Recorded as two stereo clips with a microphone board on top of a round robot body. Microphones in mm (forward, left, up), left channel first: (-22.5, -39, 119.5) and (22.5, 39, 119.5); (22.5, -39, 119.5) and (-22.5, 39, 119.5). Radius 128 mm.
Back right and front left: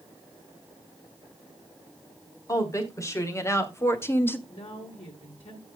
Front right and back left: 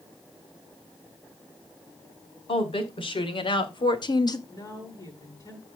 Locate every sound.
2.5 s a woman speaking: 65° right, 3.5 m
4.5 s a woman speaking: 110° right, 7.5 m